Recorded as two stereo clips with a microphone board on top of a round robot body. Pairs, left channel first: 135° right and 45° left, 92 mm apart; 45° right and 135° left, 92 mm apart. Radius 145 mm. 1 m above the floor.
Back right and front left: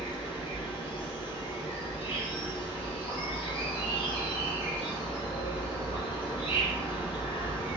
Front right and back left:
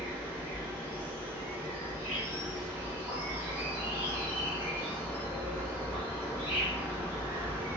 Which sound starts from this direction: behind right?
An insect, at 0.0 s.